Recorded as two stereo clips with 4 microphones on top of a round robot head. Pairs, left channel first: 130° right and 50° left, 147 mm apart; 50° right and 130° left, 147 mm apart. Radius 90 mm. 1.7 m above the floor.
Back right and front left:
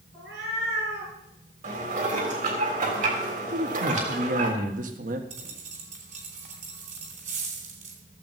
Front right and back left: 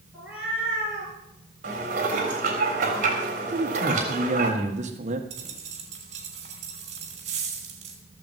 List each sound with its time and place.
0.1 s a cat meowing: 45° left, 5.5 m
1.6 s dishes clattering: 90° left, 3.5 m
3.5 s a man speaking: 85° left, 1.6 m
5.3 s a dropped coin: 85° left, 2.5 m